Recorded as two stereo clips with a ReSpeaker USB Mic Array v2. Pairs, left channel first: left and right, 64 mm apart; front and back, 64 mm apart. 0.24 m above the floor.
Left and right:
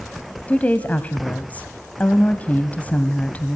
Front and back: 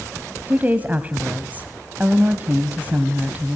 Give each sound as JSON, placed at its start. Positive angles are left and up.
{"t": 0.5, "sound": "a woman speaking", "azimuth_deg": 135, "distance_m": 1.1}